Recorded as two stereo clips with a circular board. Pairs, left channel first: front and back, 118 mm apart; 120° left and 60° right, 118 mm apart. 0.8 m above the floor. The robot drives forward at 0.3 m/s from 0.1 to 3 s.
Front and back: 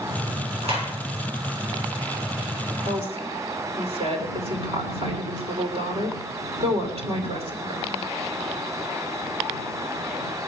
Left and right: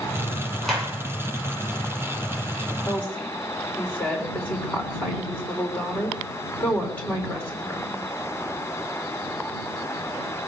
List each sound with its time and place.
0.6 s a clap: 155° right, 9 m
2.9 s a woman speaking: 160° right, 3 m